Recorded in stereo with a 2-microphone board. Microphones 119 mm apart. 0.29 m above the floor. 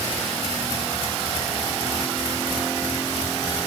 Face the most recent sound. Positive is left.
No sound to turn to.